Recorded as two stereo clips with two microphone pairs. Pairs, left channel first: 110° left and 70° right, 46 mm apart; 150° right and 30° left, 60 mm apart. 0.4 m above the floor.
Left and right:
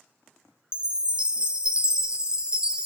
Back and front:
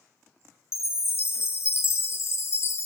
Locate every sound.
0.7 s a chime: 130° right, 0.6 m